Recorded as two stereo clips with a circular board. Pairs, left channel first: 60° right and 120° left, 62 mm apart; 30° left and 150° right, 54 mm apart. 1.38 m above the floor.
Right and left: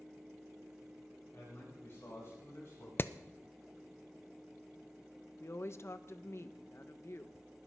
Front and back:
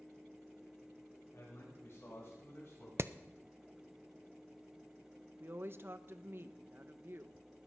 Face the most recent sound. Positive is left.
turn(degrees=-105)